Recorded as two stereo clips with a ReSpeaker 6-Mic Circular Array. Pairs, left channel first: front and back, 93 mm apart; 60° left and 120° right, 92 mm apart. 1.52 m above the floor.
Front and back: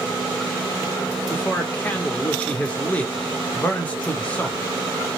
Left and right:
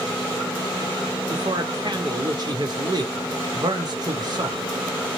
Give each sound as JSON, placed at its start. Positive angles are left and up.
{"t": 1.3, "sound": "a man speaking", "azimuth_deg": -75, "distance_m": 0.9}